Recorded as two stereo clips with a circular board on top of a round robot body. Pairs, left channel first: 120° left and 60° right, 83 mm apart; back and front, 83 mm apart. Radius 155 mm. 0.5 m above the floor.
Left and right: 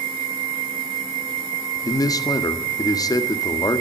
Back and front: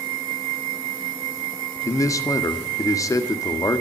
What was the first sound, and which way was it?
A man speaking, 145° left.